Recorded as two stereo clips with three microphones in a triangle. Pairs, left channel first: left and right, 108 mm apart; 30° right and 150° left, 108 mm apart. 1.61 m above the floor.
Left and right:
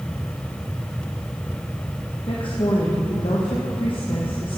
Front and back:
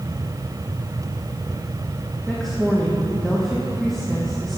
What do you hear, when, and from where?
2.3 s a woman speaking: 55° left, 1.2 m